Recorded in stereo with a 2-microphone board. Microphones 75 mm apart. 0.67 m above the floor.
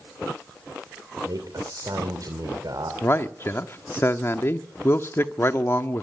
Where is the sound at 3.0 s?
35° left (ahead or behind), 1.1 m.